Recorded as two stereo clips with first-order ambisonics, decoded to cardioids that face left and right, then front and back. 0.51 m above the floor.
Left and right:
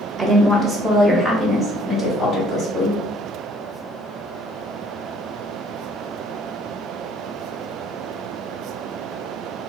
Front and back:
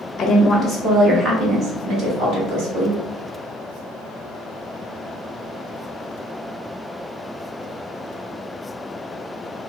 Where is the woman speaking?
80° right, 0.9 m; by 3.0 s 165° left, 1.8 m.